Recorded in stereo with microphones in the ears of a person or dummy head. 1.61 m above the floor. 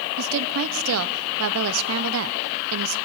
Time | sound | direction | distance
0.2 | a woman speaking | 85° right | 1.0 m